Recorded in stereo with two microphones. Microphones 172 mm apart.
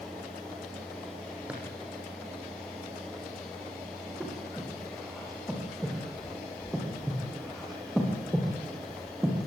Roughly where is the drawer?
Centre.